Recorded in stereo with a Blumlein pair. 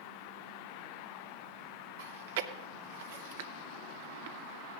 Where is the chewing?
55° right, 0.7 m.